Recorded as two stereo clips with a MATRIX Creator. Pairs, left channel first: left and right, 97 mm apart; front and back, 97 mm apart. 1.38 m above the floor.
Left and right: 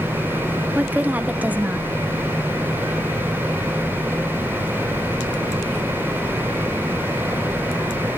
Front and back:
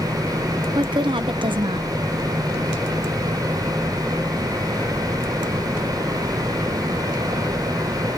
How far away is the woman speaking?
About 0.8 m.